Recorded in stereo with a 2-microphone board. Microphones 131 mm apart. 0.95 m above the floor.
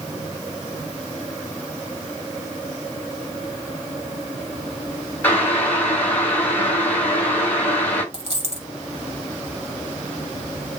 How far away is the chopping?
I don't hear chopping.